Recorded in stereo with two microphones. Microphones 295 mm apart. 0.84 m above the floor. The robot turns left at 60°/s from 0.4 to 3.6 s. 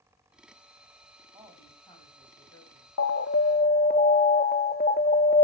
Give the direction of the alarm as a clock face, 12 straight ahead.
10 o'clock.